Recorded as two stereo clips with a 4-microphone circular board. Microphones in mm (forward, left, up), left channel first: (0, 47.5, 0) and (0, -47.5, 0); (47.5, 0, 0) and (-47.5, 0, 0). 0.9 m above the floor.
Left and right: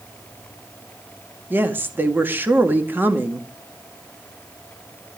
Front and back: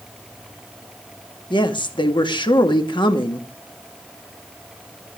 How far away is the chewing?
I don't hear chewing.